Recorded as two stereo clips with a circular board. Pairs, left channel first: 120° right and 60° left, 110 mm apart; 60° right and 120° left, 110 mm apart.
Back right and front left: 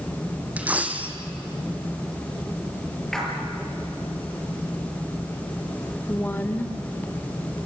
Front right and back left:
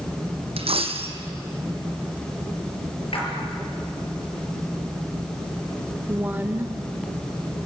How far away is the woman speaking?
About 1.1 m.